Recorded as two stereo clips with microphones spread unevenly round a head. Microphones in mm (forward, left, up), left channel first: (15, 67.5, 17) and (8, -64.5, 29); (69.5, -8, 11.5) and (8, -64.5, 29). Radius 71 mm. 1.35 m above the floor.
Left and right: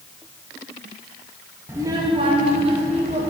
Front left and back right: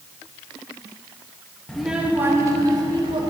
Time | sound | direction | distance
1.7 | a child speaking | 65° right | 0.6 m